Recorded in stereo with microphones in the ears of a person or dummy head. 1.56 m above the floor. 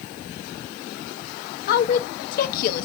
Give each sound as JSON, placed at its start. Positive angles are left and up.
{"t": 1.7, "sound": "a woman speaking", "side_deg": 55, "distance_m": 0.7}